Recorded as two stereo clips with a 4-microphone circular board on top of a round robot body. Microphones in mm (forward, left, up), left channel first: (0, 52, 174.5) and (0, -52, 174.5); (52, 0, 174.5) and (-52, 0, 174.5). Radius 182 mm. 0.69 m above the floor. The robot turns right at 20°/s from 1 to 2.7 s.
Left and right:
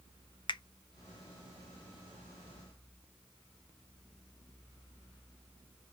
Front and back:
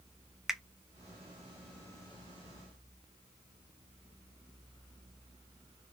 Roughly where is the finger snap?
Left.